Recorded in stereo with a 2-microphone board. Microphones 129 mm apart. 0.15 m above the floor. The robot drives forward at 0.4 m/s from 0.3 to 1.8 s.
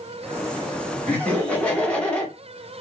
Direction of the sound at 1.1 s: 10° left (ahead or behind).